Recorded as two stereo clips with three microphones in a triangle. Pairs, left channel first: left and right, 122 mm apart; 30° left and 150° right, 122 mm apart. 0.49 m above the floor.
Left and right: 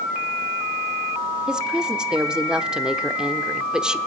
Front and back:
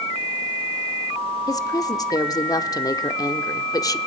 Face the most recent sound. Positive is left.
turn(degrees=-10)